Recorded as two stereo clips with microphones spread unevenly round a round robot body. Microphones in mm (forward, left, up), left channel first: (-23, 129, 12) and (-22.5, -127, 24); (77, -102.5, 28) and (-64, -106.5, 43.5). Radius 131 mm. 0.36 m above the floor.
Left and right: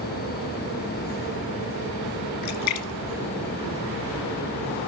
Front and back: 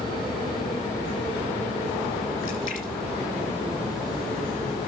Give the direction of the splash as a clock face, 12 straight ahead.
10 o'clock.